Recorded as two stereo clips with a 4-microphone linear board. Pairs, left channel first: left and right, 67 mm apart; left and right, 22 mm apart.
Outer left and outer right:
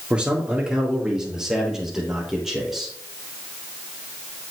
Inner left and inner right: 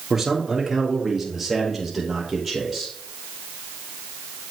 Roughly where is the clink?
No clink in this recording.